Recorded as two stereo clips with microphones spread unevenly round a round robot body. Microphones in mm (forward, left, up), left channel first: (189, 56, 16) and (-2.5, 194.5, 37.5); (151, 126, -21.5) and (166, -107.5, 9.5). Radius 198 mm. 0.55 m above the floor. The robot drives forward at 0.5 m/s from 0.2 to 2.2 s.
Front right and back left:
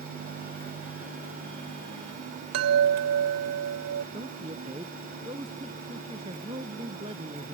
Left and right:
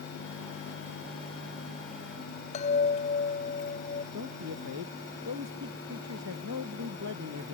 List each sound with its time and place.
2.5 s a chime: 160° left
4.1 s a woman speaking: 140° right